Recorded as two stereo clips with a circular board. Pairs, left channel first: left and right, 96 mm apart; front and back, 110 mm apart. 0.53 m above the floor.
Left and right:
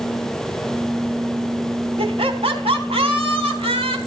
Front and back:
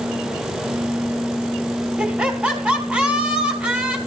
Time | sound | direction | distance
2.0 | laughter | 100° right | 4 m